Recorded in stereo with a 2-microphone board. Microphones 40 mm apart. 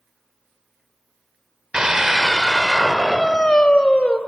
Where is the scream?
20° right (ahead or behind), 1.0 m; by 4.2 s 30° left (ahead or behind), 1.5 m.